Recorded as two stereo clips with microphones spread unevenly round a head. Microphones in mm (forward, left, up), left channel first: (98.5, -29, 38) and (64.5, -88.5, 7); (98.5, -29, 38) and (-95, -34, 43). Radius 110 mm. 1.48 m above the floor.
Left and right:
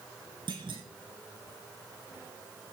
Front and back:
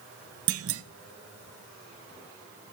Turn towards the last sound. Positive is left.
turn(degrees=170)